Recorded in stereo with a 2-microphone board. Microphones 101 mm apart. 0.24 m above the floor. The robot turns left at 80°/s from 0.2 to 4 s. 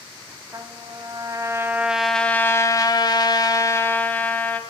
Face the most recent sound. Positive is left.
turn(degrees=25)